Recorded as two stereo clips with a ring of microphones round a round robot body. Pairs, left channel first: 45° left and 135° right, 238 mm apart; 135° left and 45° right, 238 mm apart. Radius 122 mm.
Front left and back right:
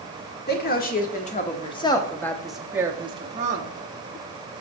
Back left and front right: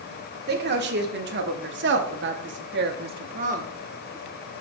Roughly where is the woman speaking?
Ahead.